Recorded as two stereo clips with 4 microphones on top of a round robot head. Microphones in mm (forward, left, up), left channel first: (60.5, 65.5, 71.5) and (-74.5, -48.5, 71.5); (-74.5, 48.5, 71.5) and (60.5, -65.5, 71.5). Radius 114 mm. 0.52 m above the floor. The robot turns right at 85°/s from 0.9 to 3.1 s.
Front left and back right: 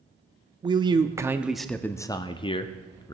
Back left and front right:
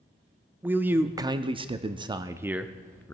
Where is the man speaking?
110° right, 0.7 m; by 3.1 s 80° left, 0.7 m.